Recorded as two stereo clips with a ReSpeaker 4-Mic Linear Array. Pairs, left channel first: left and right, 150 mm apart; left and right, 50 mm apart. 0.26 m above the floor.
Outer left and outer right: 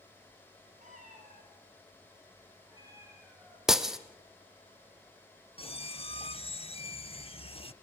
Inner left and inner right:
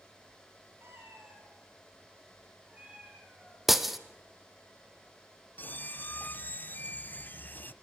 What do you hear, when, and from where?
0.8 s a cat meowing: 55° right (ahead or behind), 5.5 m; by 3.6 s 10° right (ahead or behind), 5 m
3.7 s breaking glass: 5° right (ahead or behind), 1.1 m
5.6 s a squeak: 40° left (ahead or behind), 0.7 m